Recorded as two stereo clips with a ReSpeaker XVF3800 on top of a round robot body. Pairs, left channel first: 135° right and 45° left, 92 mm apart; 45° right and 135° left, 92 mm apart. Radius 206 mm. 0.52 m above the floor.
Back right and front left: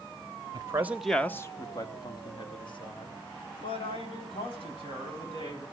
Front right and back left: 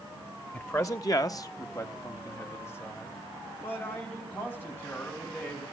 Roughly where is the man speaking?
Ahead.